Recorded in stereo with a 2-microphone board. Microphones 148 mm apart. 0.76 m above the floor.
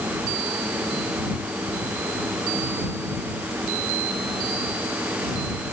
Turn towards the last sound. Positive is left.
No sound to turn to.